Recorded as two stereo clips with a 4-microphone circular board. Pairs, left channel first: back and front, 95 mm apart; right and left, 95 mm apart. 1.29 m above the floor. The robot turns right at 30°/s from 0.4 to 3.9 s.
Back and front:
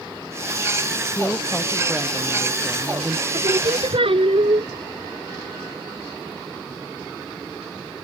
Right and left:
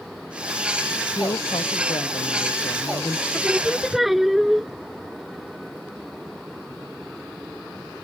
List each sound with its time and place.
1.1 s a woman speaking: 125° right; by 3.2 s 60° right
3.3 s singing: 15° right; by 4.7 s straight ahead